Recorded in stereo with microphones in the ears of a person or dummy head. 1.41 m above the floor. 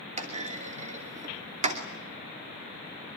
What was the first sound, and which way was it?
A clunk, 40° right (ahead or behind).